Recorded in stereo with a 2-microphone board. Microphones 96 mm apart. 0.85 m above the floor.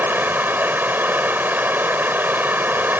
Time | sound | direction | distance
0.0 | running water | 20° right (ahead or behind) | ?